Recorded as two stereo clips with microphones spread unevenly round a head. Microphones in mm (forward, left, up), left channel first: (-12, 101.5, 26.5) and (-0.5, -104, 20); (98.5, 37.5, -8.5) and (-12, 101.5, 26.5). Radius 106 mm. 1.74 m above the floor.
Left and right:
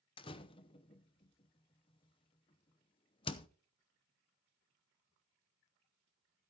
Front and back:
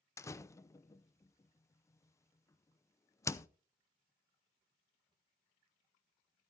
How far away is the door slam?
About 0.7 m.